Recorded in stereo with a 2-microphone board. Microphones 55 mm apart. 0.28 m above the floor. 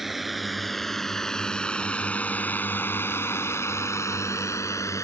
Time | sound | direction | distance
0.0 | a drone | 5° right (ahead or behind) | ?